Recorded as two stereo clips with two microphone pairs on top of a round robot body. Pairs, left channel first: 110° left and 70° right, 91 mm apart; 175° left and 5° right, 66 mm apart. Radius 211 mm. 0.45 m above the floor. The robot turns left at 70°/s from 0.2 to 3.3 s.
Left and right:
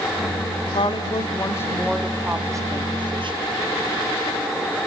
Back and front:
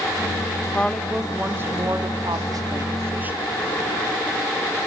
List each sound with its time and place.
0.7 s a woman speaking: 110° left, 2.5 m; by 3.5 s 70° right, 2.5 m